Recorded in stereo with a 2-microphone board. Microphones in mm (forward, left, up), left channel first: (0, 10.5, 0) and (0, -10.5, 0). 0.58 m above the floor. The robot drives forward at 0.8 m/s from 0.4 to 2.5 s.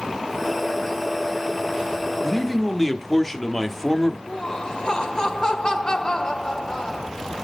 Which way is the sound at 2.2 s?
5° left (ahead or behind).